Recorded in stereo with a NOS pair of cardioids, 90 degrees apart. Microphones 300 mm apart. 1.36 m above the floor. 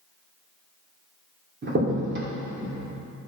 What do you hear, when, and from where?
1.6 s a crack: 40° right, 3 m